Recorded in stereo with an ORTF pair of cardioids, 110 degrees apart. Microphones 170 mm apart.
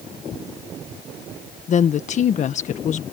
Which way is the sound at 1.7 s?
50° left.